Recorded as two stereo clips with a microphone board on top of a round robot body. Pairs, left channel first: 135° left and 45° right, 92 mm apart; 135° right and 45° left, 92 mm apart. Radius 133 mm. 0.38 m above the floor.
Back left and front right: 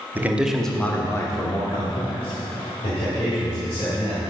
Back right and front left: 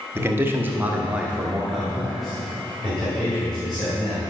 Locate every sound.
0.1 s a man speaking: 5° left, 1.6 m; by 4.2 s 140° left, 5 m